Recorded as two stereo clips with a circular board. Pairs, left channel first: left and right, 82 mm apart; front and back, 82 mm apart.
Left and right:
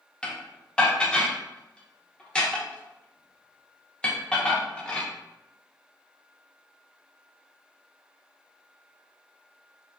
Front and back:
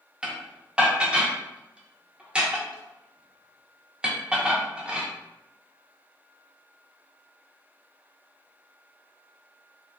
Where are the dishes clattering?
140° left, 0.7 m.